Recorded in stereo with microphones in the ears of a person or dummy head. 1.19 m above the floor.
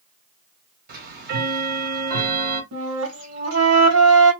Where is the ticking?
55° right (ahead or behind), 1.4 m.